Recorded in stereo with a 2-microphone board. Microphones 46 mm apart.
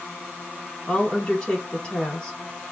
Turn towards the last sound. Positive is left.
turn(degrees=20)  # may be behind; listen again after turning